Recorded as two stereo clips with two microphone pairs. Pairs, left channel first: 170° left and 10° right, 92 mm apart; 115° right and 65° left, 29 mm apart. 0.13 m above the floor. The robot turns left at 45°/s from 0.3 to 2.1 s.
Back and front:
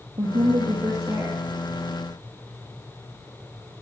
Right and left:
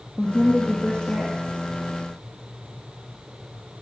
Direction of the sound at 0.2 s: 25° right.